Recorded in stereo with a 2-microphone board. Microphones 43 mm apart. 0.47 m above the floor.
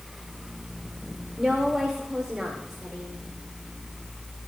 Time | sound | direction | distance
1.4 | a woman speaking | 10° right (ahead or behind) | 1.6 m